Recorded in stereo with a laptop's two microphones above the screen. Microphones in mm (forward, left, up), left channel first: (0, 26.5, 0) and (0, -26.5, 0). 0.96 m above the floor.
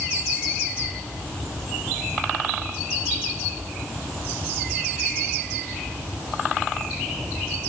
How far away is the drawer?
No drawer in this recording.